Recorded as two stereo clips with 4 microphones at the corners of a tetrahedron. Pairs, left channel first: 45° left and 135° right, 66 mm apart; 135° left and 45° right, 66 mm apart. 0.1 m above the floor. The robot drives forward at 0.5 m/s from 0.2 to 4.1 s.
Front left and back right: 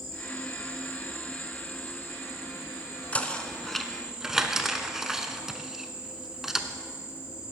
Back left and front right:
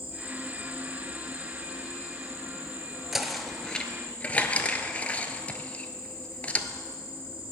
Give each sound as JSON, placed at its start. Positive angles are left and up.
{"t": 0.0, "sound": "an insect", "azimuth_deg": 120, "distance_m": 2.5}
{"t": 3.1, "sound": "knocking", "azimuth_deg": 30, "distance_m": 0.8}